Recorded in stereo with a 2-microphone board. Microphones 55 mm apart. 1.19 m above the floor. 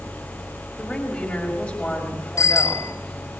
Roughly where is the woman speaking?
Centre.